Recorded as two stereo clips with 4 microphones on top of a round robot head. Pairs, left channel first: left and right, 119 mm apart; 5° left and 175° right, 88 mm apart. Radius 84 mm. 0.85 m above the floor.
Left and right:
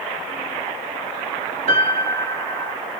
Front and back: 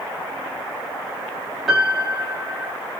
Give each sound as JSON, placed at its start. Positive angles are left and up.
{"t": 1.7, "sound": "a piano", "azimuth_deg": -80, "distance_m": 1.0}